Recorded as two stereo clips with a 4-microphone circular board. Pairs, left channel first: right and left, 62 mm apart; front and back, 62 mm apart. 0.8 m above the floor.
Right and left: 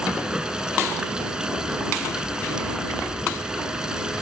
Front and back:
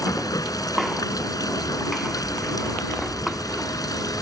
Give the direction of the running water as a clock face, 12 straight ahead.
12 o'clock.